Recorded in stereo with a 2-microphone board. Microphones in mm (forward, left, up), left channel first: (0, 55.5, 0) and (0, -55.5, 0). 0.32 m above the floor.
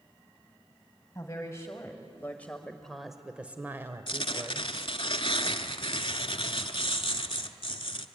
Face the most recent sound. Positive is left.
turn(degrees=55)  # may be behind; listen again after turning